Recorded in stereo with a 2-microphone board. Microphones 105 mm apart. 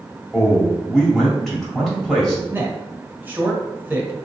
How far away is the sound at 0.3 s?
About 1.6 m.